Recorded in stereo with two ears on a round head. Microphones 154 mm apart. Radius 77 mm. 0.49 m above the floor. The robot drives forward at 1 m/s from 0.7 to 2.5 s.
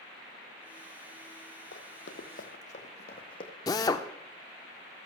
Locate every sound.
1.7 s running footsteps: 70° left (ahead or behind), 1.3 m; by 3.5 s 30° left (ahead or behind), 1.7 m
3.7 s a drill: 20° left (ahead or behind), 0.6 m